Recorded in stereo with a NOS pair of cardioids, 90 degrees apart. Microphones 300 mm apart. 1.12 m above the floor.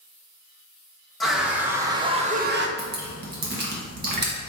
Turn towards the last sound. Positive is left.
turn(degrees=-35)